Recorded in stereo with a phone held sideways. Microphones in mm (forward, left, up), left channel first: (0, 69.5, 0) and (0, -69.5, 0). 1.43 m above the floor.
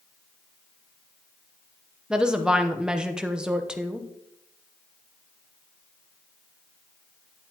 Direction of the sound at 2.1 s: 5° right (ahead or behind).